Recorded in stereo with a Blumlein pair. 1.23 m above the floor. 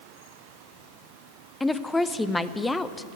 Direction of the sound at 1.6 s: 5° left.